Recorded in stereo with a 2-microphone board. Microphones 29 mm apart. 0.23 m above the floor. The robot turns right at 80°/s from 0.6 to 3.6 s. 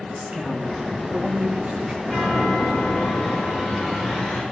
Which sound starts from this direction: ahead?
A chime, at 2.0 s.